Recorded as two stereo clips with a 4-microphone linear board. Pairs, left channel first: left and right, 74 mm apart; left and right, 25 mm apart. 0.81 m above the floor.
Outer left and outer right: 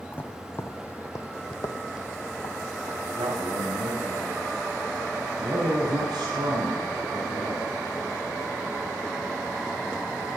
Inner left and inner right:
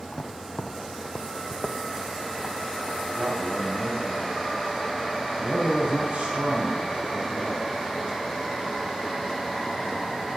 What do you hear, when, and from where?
0.1 s footsteps: 25° left (ahead or behind), 1.4 m; by 3.0 s 65° left (ahead or behind), 2.5 m
3.0 s a man speaking: 85° right, 4.5 m